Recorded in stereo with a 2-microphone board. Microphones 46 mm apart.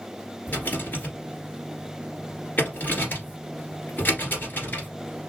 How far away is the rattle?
About 1.7 m.